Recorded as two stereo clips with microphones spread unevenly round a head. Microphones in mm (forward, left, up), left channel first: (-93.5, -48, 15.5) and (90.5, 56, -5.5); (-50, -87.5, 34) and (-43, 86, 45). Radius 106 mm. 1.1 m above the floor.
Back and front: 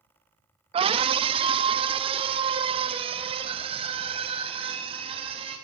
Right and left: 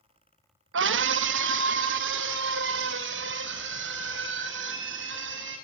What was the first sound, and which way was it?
A scream, 95° left.